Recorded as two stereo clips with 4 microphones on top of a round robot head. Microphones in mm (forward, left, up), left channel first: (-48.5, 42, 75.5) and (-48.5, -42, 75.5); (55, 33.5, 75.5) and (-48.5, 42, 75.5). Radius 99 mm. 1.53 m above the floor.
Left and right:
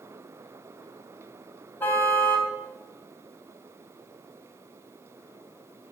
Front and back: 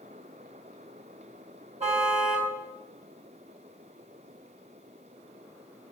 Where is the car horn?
155° left, 3.5 m.